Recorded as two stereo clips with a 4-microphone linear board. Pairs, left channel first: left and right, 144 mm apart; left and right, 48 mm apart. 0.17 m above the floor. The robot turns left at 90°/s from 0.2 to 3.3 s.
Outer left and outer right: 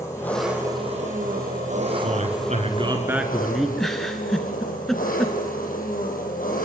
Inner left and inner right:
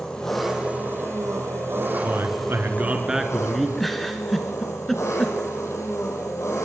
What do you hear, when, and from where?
0.0 s an engine running: 20° left, 5.5 m; by 6.7 s 100° left, 5.5 m
2.0 s a man speaking: 65° right, 2.5 m; by 3.7 s straight behind, 2.5 m
3.8 s a giggle: centre (ahead or behind), 2.5 m